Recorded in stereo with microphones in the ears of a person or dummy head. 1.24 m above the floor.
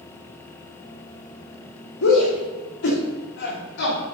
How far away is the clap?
No clap in this recording.